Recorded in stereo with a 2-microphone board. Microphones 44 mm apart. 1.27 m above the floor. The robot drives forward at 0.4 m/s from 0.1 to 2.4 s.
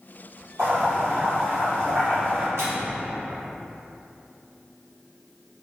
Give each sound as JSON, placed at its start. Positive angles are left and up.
{"t": 0.6, "sound": "boiling", "side_deg": -60, "distance_m": 1.8}
{"t": 2.6, "sound": "a microwave", "side_deg": -75, "distance_m": 0.8}